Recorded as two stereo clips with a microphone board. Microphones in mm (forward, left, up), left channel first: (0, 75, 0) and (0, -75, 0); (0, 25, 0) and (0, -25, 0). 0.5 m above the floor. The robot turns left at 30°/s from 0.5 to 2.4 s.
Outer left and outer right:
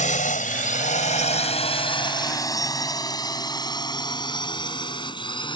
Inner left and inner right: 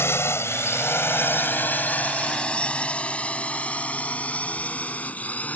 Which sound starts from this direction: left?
A drone, at 0.0 s.